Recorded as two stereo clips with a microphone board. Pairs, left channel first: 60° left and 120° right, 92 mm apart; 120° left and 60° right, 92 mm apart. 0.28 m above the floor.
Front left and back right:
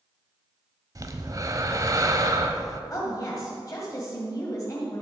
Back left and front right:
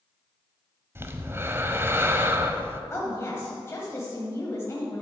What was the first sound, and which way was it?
Breathing, 105° right.